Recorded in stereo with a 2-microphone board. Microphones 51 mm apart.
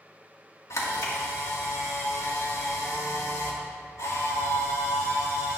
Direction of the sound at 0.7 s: 75° left (ahead or behind).